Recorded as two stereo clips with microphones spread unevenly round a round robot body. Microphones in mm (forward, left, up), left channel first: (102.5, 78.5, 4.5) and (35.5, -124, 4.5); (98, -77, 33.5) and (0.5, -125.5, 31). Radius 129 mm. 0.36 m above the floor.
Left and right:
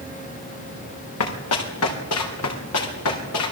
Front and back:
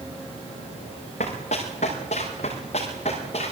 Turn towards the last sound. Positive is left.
turn(degrees=85)